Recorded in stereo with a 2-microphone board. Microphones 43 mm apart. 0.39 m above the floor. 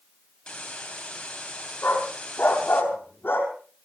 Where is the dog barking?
50° left (ahead or behind), 4 m.